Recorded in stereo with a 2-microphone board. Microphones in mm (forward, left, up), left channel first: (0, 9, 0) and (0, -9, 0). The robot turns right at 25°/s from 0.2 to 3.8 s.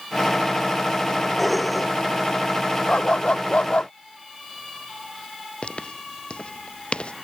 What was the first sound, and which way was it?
Dishes clattering, 5° left (ahead or behind).